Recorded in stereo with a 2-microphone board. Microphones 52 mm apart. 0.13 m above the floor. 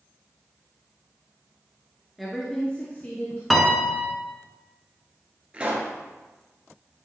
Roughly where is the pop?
Right.